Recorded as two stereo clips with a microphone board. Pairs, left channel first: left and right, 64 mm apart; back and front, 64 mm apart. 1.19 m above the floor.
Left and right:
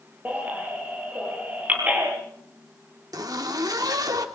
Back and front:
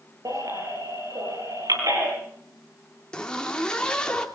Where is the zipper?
100° right, 2.5 m.